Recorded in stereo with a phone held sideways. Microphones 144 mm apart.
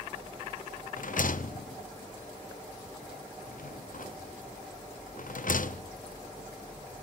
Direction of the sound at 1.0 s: 70° left (ahead or behind).